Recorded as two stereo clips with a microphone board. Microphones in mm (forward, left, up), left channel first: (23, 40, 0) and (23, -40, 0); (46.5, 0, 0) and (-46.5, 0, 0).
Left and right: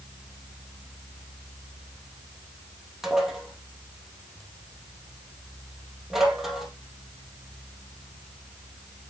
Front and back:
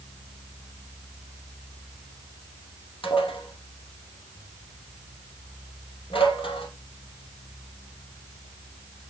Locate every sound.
3.0 s dishes clattering: 5° right, 3 m